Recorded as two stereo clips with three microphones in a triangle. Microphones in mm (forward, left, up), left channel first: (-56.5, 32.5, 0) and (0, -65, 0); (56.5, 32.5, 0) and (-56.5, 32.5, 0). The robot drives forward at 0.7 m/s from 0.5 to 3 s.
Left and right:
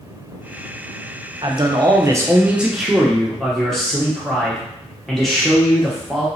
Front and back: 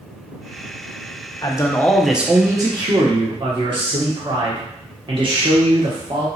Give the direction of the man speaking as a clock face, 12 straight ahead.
1 o'clock.